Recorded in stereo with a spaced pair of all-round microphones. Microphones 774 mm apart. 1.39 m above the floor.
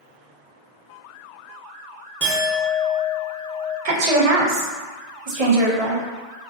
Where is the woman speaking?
50° right (ahead or behind), 0.6 m.